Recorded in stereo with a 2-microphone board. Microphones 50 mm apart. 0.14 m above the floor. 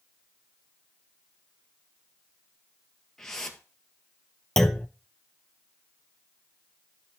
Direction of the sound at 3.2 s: 10° left (ahead or behind).